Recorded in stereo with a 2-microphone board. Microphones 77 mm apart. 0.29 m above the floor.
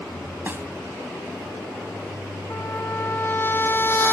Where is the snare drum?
30° right (ahead or behind).